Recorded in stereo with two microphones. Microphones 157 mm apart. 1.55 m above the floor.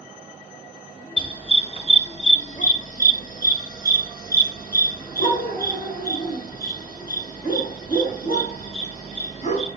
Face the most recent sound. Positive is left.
turn(degrees=50)  # may be behind; listen again after turning